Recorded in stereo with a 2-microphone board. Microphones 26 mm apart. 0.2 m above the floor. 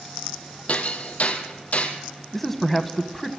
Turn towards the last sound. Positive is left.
turn(degrees=5)  # may be behind; listen again after turning